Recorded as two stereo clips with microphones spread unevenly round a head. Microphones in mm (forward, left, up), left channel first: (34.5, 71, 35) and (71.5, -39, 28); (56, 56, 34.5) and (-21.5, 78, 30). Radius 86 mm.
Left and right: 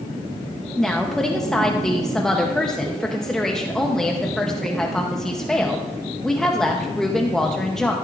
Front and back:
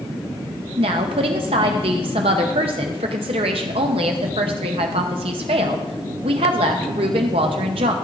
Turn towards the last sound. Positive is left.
turn(degrees=-165)